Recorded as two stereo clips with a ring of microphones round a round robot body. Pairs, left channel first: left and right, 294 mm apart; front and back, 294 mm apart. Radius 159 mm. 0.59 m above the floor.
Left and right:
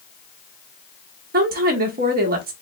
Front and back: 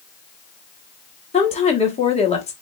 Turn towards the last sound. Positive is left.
turn(degrees=-55)